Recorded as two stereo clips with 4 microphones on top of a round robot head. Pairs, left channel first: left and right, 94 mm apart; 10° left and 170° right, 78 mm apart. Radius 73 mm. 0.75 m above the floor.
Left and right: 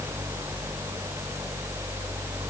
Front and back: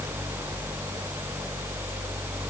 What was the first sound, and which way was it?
Only background noise.